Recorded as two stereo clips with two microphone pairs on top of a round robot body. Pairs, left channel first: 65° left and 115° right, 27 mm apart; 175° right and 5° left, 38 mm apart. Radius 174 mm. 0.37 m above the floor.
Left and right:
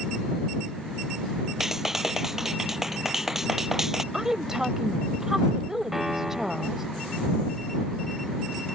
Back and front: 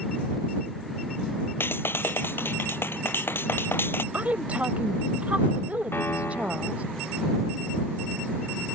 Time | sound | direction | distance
1.6 | a clap | 170° left | ?
4.1 | a woman speaking | 40° right | ?
5.9 | a piano | 165° left | ?